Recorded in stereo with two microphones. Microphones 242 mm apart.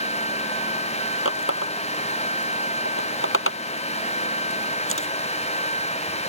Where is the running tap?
55° left (ahead or behind).